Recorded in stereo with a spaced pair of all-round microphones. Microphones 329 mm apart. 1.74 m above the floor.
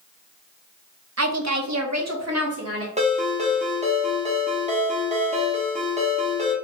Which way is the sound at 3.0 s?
20° right (ahead or behind).